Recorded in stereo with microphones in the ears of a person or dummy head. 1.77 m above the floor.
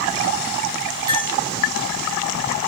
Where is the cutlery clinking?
25° right (ahead or behind), 2.5 m.